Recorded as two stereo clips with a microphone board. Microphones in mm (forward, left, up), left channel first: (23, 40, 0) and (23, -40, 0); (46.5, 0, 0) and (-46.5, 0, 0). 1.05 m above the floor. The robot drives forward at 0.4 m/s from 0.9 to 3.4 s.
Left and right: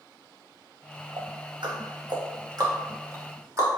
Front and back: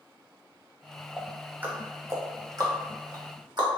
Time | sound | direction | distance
1.2 | ticking | 100° right | 0.8 m